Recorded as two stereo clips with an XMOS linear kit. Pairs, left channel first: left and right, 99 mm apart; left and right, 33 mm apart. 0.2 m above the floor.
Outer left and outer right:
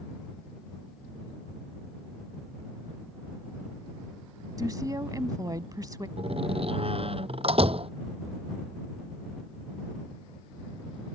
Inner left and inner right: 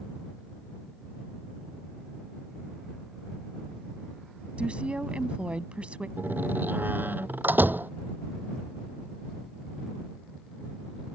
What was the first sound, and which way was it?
A woman speaking, 35° right (ahead or behind).